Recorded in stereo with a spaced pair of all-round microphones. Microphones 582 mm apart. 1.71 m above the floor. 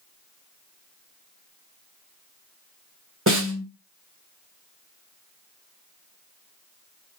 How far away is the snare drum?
About 1.6 m.